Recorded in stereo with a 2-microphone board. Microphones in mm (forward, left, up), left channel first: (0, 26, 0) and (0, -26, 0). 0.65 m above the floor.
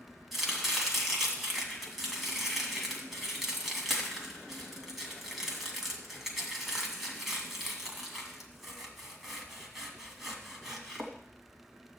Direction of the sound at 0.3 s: 5° right (ahead or behind).